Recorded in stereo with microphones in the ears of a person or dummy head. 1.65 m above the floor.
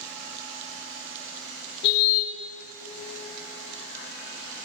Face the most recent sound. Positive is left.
turn(degrees=55)  # may be behind; listen again after turning